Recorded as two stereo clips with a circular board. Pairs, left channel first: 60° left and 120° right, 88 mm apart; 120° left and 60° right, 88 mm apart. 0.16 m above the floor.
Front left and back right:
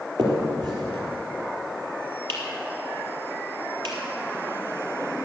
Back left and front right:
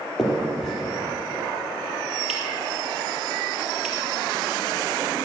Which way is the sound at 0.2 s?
155° right.